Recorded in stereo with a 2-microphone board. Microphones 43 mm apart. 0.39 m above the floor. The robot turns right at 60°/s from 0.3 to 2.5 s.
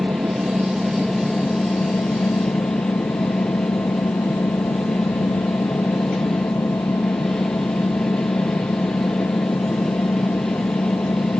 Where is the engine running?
45° right; by 11.4 s 90° left.